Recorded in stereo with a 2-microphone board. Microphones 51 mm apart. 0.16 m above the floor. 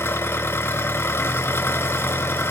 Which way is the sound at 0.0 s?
50° left (ahead or behind).